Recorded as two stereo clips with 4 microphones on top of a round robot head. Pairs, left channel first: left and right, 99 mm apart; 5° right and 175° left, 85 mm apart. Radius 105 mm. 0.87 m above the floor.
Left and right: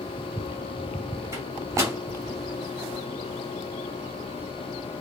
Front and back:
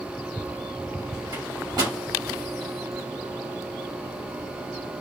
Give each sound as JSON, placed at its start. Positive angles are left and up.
{"t": 1.3, "sound": "a microwave", "azimuth_deg": -150, "distance_m": 1.6}